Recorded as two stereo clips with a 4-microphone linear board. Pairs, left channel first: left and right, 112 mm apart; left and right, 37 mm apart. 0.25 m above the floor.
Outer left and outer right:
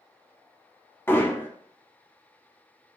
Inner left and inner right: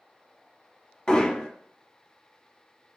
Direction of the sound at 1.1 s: 20° left (ahead or behind).